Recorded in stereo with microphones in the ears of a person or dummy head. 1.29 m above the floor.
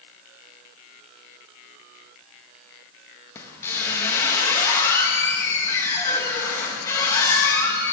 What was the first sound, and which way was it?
A squeak, 15° left (ahead or behind).